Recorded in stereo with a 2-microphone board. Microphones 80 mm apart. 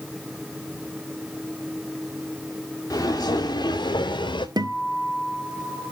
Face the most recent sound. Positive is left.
turn(degrees=-65)  # may be behind; listen again after turning